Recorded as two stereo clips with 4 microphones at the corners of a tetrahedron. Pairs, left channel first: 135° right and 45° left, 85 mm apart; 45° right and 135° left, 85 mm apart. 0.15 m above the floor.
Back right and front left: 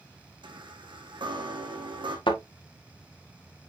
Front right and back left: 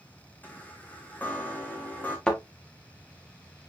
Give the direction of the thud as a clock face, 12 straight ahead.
4 o'clock.